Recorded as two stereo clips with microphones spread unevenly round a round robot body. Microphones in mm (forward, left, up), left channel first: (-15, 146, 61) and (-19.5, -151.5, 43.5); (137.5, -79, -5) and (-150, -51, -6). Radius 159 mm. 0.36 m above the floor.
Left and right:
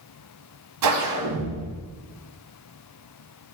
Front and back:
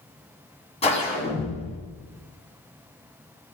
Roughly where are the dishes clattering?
I don't hear dishes clattering.